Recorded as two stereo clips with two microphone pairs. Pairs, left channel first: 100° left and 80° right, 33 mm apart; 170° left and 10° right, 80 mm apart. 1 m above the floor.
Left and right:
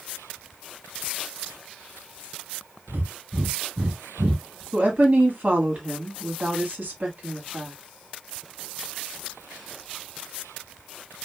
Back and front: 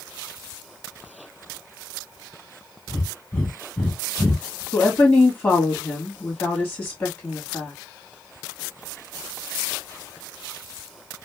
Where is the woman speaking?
120° right, 1.7 m.